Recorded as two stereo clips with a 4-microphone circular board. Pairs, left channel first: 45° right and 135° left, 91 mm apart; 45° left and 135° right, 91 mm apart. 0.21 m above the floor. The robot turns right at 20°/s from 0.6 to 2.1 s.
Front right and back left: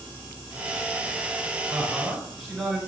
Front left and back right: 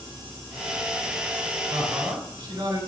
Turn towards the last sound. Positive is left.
turn(degrees=-135)